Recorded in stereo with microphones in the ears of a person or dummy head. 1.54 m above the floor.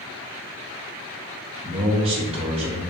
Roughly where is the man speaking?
Right.